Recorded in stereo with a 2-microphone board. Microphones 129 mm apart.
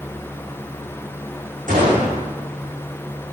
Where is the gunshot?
85° right, 7.5 m.